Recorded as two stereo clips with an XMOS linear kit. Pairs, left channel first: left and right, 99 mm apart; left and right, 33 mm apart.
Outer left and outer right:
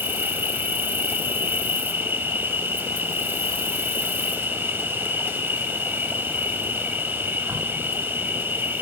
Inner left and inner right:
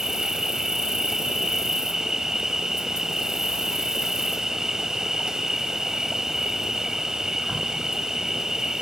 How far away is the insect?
About 0.9 m.